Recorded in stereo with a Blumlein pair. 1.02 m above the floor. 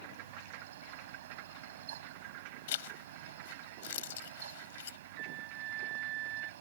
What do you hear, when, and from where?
0.0 s a fan: 60° right
2.7 s a zipper: 55° left
5.2 s a flute: 35° right